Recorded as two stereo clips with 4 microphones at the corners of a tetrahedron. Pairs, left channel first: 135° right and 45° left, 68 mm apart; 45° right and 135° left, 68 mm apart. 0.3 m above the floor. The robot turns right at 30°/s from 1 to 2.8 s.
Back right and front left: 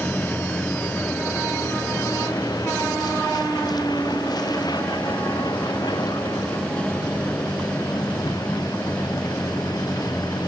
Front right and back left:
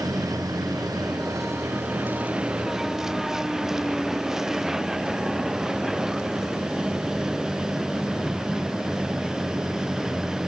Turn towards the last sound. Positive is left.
turn(degrees=-140)